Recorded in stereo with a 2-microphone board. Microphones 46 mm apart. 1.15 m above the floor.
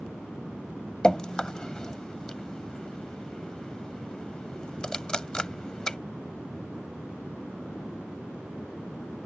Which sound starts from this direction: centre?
Dripping, at 1.0 s.